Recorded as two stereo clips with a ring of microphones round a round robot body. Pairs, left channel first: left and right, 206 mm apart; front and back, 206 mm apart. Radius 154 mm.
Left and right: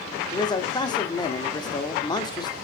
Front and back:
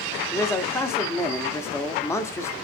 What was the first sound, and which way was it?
A man speaking, 60° left.